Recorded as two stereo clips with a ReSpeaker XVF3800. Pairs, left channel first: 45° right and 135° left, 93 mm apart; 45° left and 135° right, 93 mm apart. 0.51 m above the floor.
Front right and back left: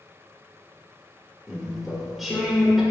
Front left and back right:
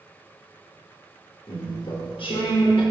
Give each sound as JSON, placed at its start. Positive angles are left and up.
{"t": 1.5, "sound": "chewing", "azimuth_deg": 50, "distance_m": 0.7}